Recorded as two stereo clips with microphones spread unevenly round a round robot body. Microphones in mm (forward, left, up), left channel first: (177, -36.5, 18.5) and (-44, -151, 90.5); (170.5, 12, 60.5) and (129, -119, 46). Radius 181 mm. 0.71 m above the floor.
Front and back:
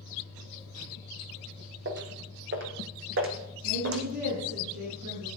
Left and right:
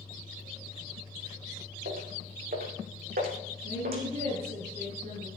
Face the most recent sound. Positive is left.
turn(degrees=-145)